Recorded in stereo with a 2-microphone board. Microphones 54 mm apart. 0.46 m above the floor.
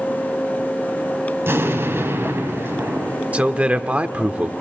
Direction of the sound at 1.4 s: 50° right (ahead or behind).